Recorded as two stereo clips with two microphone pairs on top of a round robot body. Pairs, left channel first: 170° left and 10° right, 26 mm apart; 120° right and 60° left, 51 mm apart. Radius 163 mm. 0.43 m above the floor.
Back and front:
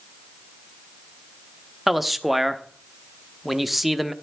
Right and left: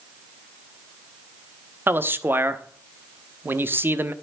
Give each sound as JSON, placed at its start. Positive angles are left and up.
{"t": 1.9, "sound": "a man speaking", "azimuth_deg": 65, "distance_m": 1.4}